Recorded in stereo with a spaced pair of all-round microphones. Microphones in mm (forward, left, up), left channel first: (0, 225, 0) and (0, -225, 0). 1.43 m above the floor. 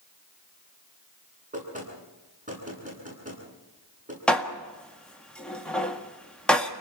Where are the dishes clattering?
Centre (ahead or behind), 1.6 m.